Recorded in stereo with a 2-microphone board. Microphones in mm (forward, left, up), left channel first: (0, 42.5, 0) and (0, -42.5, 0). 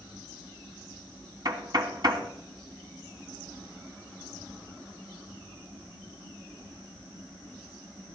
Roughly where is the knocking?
Right.